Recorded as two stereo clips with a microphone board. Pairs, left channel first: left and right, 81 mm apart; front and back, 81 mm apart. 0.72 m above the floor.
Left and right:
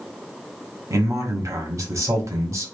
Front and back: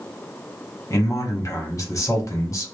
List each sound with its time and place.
0.9 s a man speaking: 45° right, 1.0 m